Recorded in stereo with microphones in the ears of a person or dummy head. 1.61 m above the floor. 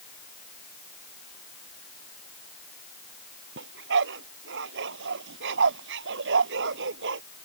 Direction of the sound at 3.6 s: 65° right (ahead or behind).